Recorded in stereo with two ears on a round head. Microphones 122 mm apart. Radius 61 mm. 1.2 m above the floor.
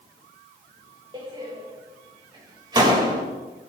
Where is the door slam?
35° right (ahead or behind), 3.5 m.